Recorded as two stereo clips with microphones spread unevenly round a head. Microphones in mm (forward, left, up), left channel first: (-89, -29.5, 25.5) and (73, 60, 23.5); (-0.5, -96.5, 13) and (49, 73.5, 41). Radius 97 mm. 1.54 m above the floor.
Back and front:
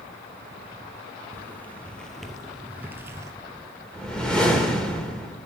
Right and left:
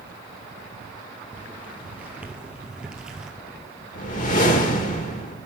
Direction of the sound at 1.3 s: 140° left.